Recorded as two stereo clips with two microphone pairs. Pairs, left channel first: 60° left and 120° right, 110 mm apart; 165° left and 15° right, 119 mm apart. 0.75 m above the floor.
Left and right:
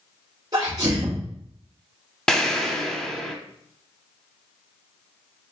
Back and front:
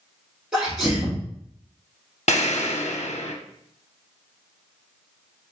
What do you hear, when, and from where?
0.5 s a sneeze: 90° right, 1.3 m
2.3 s an explosion: 145° left, 0.7 m